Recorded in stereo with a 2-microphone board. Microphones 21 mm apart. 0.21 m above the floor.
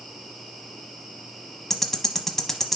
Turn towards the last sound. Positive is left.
turn(degrees=20)  # may be behind; listen again after turning